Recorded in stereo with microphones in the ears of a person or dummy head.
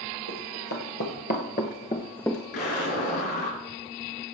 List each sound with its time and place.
0.3 s running footsteps: 55° left (ahead or behind), 3 m; by 2.4 s centre (ahead or behind), 1.4 m
2.5 s an explosion: 55° left (ahead or behind), 5 m